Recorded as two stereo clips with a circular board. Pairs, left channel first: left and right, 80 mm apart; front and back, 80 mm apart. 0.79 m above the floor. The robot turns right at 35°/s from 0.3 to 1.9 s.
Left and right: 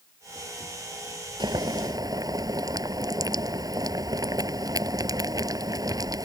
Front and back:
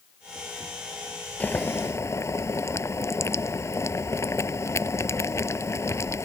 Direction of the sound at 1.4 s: 70° right.